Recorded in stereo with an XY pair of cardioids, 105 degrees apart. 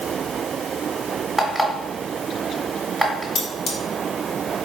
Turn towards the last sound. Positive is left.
turn(degrees=65)